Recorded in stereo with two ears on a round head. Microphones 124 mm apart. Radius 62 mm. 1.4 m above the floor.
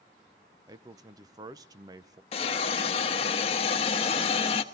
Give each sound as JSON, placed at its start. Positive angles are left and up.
{"t": 0.7, "sound": "a man speaking", "side_deg": -25, "distance_m": 0.7}
{"t": 2.3, "sound": "a hiss", "side_deg": 45, "distance_m": 1.2}